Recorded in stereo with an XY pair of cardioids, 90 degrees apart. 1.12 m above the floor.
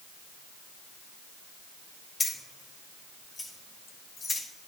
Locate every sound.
2.2 s keys jangling: 30° left, 3 m; by 4.4 s 50° left, 3.5 m